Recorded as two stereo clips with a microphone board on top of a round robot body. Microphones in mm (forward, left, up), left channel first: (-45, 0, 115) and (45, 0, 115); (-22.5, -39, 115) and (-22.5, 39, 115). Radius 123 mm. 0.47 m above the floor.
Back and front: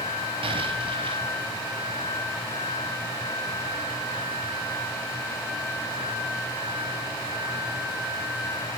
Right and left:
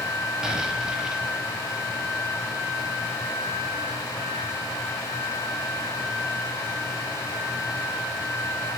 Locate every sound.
0.4 s an explosion: 10° left, 4 m